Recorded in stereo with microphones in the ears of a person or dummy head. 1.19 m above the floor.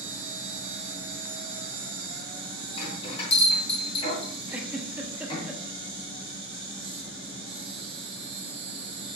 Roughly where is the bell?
Left.